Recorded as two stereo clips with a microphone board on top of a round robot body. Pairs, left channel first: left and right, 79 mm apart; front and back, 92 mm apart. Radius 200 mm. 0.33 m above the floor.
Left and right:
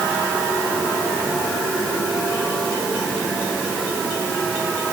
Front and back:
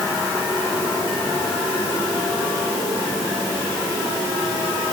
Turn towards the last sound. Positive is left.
No sound to turn to.